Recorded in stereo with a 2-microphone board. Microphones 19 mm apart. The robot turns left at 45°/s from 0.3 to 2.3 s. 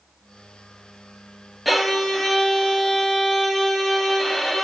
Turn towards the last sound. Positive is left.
turn(degrees=25)  # may be behind; listen again after turning